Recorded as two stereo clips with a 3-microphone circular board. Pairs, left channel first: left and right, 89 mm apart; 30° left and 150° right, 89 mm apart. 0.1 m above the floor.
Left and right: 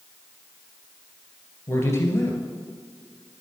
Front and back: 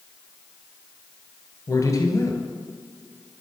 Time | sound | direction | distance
1.7 | a man speaking | 45° left | 1.4 m